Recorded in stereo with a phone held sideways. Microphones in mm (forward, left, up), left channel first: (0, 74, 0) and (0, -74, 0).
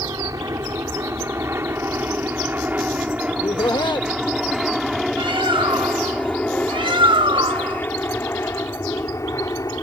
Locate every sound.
0.0 s an aircraft: 25° right (ahead or behind); by 9.8 s 25° left (ahead or behind)
3.3 s laughter: 30° left (ahead or behind)
5.2 s a bird: 35° right (ahead or behind)